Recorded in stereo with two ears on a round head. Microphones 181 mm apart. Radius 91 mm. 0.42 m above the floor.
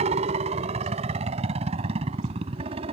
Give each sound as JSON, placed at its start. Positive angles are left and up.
{"t": 0.0, "sound": "a helicopter", "side_deg": -35}